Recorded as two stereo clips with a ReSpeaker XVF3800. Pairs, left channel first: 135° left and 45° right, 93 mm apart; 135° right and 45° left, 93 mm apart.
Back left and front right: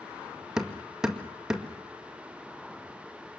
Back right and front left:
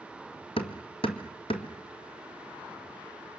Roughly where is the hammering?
Behind right.